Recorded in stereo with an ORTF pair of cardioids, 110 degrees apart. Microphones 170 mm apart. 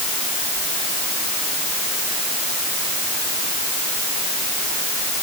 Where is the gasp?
I don't hear a gasp.